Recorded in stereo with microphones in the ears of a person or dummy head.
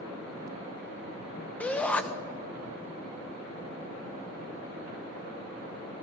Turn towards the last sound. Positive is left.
turn(degrees=5)  # may be behind; listen again after turning